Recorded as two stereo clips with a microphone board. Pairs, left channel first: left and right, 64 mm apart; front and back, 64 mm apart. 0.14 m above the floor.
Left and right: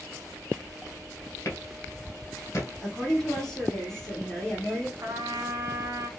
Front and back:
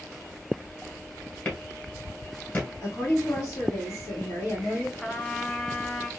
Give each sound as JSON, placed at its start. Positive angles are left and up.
{"t": 1.4, "sound": "a clap", "azimuth_deg": 55, "distance_m": 1.6}
{"t": 2.8, "sound": "a woman speaking", "azimuth_deg": 10, "distance_m": 2.5}
{"t": 5.0, "sound": "a trumpet", "azimuth_deg": -80, "distance_m": 0.7}